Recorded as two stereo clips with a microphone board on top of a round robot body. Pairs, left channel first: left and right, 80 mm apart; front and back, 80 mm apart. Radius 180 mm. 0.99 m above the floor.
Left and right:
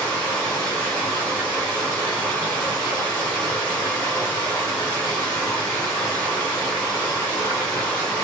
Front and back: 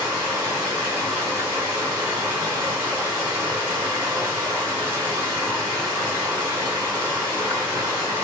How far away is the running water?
About 0.8 m.